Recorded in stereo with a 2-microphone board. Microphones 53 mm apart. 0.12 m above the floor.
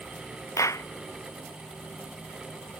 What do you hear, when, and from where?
0.6 s a clap: 80° left